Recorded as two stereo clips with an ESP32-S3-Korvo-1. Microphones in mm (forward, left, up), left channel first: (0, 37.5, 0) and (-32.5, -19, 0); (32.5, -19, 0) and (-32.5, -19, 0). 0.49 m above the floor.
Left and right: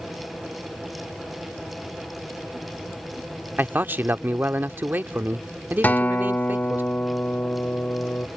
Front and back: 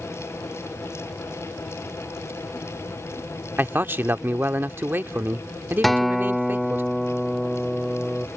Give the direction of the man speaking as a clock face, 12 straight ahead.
5 o'clock.